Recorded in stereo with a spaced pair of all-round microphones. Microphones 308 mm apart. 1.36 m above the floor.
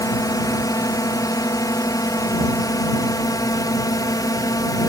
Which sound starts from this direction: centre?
A drone, at 0.0 s.